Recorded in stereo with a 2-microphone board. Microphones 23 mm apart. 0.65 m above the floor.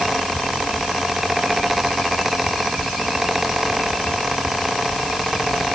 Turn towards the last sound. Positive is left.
No sound to turn to.